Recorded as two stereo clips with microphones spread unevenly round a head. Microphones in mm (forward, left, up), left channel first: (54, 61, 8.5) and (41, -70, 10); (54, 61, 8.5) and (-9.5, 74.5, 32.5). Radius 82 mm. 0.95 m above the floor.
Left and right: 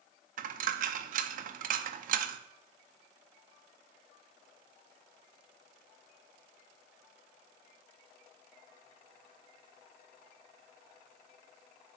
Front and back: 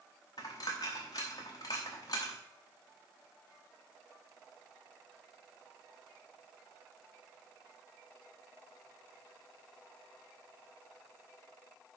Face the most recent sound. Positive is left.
turn(degrees=-80)